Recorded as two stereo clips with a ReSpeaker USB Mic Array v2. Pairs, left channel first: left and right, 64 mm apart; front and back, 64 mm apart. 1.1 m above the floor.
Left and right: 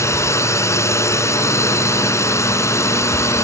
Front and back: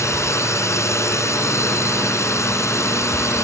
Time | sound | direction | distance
0.0 | a drone | 45° left | ?